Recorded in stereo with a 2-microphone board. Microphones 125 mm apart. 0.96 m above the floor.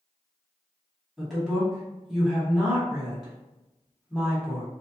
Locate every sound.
1.2 s a woman speaking: 10° right (ahead or behind), 1.3 m